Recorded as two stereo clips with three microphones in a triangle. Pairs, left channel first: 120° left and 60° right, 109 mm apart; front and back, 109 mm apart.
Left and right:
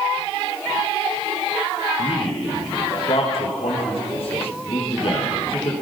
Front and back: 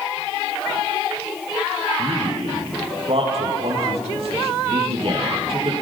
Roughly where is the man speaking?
Behind left.